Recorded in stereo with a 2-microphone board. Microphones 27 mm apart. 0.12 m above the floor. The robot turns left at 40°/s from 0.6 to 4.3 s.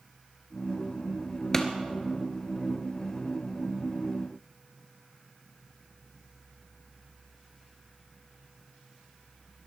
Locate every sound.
1.5 s a pop: 20° left (ahead or behind), 1.3 m; by 1.7 s 15° left (ahead or behind), 1.3 m